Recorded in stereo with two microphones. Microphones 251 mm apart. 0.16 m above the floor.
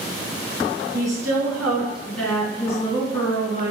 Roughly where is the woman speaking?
Centre.